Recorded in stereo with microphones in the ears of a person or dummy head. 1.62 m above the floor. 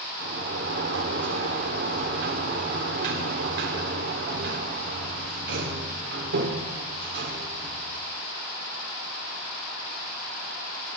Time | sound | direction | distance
0.2 | a sliding door | 60° right (ahead or behind) | 2.5 m